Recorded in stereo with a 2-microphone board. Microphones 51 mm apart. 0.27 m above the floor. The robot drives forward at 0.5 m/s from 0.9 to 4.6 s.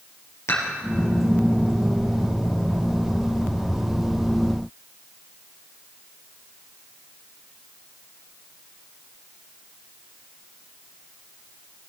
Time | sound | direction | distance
0.5 | dishes clattering | 65° left (ahead or behind) | 4.5 m